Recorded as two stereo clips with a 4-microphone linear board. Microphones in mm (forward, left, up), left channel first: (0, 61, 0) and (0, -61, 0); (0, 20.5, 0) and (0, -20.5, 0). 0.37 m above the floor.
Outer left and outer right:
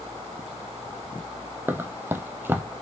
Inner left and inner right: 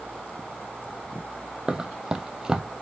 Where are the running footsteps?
20° right (ahead or behind), 0.5 m.